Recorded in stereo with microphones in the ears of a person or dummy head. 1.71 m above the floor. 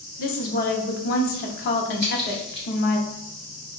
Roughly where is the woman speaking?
Left.